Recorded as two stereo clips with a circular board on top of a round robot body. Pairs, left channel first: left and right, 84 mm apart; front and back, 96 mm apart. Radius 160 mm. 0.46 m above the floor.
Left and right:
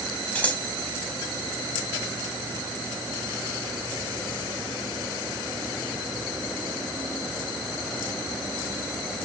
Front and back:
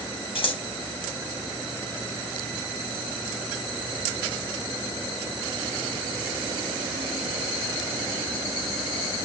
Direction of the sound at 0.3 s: 20° left.